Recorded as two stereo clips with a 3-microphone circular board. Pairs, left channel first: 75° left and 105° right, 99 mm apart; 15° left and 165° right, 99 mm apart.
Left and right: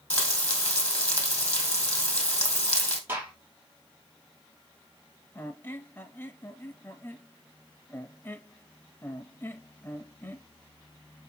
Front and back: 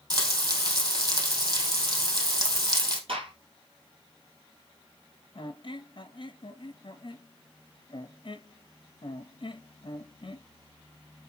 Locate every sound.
0.1 s frying: 150° left, 2.5 m
3.1 s a gunshot: 170° right, 2.5 m
5.3 s a squeak: 15° left, 0.8 m